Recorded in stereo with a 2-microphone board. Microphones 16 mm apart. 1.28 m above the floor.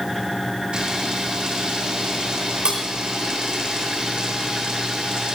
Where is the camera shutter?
80° right, 5.5 m.